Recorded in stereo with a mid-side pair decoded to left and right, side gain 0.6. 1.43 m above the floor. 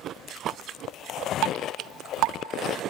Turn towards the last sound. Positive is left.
turn(degrees=-70)